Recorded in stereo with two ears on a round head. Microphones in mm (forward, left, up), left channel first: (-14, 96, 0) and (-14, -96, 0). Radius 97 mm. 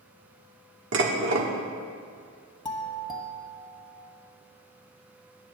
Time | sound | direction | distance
0.9 | dishes clattering | 60° right (ahead or behind) | 1.3 m
2.6 | a doorbell | 20° left (ahead or behind) | 1.4 m